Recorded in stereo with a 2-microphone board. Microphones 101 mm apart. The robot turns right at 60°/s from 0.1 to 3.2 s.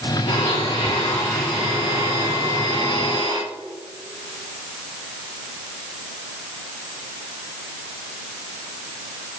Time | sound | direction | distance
0.3 | a blender | 95° left | 3 m